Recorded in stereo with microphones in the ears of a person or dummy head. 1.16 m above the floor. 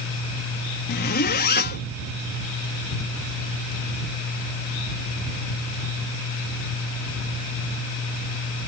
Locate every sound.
0.9 s a zipper: 55° left (ahead or behind)